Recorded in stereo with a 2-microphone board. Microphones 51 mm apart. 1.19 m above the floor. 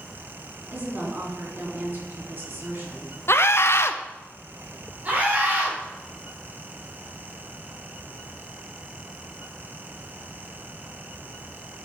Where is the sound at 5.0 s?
30° right (ahead or behind), 4 m.